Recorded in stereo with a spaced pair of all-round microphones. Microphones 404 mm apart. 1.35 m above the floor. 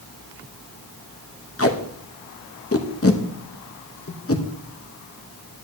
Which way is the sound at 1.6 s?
35° left (ahead or behind).